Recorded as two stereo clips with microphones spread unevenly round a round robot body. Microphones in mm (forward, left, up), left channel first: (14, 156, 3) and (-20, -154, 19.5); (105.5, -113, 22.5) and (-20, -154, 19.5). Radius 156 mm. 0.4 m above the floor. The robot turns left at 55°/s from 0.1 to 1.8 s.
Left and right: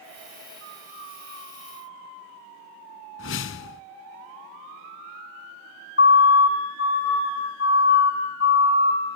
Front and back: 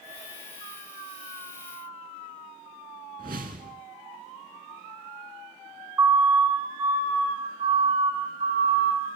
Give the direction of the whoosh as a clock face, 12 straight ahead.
7 o'clock.